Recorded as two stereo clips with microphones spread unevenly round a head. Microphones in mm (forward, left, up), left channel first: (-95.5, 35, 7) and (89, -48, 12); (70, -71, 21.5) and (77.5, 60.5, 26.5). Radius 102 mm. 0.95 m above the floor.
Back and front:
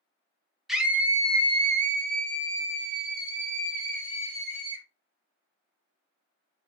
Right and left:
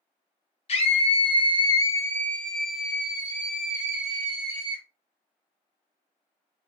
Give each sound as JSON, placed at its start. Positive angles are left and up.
{"t": 0.7, "sound": "a scream", "azimuth_deg": -115, "distance_m": 0.8}